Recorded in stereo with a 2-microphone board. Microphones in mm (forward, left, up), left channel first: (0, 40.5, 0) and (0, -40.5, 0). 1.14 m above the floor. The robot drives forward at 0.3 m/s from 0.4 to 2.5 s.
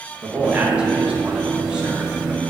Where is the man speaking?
15° right (ahead or behind), 1.4 m; by 2.4 s 10° right (ahead or behind), 2.0 m.